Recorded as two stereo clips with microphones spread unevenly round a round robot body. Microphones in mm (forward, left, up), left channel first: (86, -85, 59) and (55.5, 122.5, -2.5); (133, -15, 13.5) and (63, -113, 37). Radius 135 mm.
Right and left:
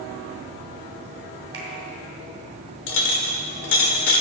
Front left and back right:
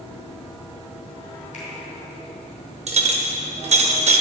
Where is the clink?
115° right, 1.1 m.